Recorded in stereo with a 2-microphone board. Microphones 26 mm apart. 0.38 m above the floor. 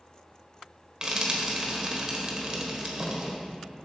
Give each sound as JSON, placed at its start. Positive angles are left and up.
{"t": 1.0, "sound": "frying", "side_deg": -30, "distance_m": 1.3}